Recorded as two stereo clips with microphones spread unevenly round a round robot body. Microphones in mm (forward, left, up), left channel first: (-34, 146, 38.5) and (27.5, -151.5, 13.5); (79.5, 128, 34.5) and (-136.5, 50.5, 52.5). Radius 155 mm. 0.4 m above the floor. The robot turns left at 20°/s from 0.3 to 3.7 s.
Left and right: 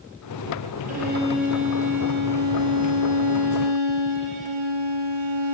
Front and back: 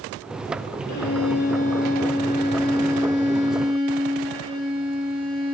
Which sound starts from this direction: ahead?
A violin, at 0.9 s.